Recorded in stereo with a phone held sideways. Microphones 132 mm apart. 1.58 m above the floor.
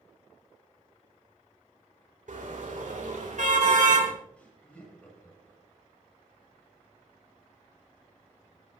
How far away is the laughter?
About 8.5 m.